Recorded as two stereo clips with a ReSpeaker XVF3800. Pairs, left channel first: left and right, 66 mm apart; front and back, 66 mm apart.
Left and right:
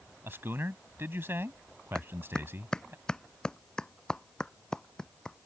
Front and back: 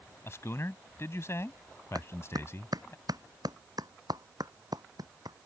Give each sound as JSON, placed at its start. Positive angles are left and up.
{"t": 0.2, "sound": "a man speaking", "azimuth_deg": -40}
{"t": 1.9, "sound": "a clap", "azimuth_deg": 170}